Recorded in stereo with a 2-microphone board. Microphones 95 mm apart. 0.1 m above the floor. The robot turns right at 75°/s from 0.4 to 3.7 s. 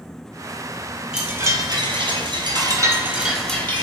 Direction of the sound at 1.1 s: 170° right.